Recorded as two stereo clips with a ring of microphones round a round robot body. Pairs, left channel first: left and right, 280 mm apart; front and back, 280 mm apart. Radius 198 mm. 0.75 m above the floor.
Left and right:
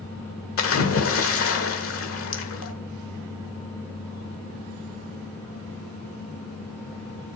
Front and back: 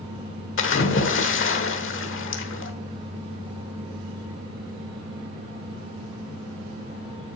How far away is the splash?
About 1.3 m.